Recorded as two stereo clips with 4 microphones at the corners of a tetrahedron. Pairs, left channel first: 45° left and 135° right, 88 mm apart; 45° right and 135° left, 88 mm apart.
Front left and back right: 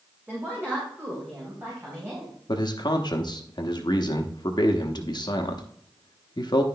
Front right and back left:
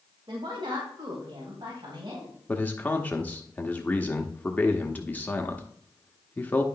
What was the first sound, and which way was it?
A woman speaking, 150° left.